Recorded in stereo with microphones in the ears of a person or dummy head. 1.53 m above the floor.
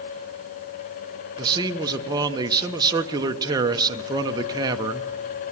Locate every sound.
1.4 s a man speaking: 20° right (ahead or behind), 1.1 m